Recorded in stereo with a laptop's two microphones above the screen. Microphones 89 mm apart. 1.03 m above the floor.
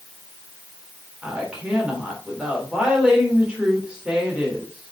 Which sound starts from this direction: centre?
A woman speaking, at 1.2 s.